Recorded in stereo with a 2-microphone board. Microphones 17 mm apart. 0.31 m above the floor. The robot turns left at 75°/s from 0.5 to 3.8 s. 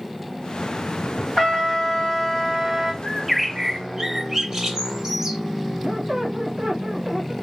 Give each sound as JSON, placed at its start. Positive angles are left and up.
{"t": 1.4, "sound": "a trumpet", "azimuth_deg": 120, "distance_m": 2.5}
{"t": 3.0, "sound": "a bird", "azimuth_deg": 20, "distance_m": 0.6}
{"t": 5.8, "sound": "a squeak", "side_deg": -60, "distance_m": 1.3}